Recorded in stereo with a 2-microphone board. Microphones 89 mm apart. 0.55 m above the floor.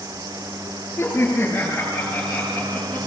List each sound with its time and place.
1.0 s laughter: 25° left (ahead or behind), 8.5 m; by 3.1 s 15° left (ahead or behind), 10 m